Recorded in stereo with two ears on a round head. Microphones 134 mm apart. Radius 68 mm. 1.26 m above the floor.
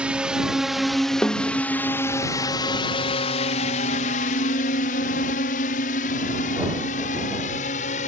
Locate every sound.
0.0 s a drone: 10° right (ahead or behind); by 8.1 s 50° left (ahead or behind)
1.2 s a snare drum: 10° left (ahead or behind)